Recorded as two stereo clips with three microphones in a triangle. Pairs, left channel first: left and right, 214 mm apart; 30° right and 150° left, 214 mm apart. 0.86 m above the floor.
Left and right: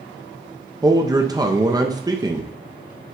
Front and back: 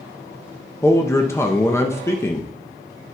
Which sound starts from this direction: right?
A man speaking, at 0.8 s.